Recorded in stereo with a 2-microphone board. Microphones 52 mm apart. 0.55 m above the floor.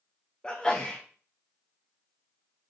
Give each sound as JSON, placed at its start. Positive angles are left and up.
{"t": 0.4, "sound": "a sneeze", "side_deg": 20, "distance_m": 0.9}